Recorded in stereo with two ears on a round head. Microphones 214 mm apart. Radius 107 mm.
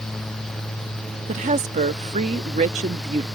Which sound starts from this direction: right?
A woman speaking, at 1.3 s.